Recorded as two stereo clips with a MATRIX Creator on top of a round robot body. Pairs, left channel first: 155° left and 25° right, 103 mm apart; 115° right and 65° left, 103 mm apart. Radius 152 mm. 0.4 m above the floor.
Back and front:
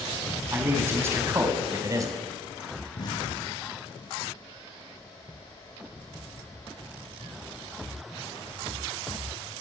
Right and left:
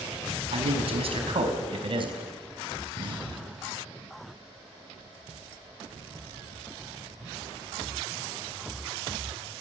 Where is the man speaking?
45° left, 5 m; by 2.2 s 35° left, 4 m.